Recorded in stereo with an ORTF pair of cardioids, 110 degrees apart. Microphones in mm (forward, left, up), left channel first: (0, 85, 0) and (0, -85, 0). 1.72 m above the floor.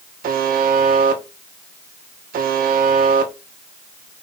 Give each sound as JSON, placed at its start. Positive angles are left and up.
{"t": 0.2, "sound": "a buzzer", "azimuth_deg": -55, "distance_m": 1.9}